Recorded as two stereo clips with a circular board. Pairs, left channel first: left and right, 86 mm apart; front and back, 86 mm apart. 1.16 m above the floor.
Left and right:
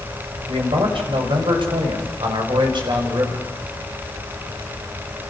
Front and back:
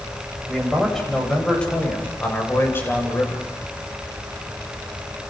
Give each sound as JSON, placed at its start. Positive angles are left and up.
{"t": 0.5, "sound": "a man speaking", "azimuth_deg": -90, "distance_m": 7.5}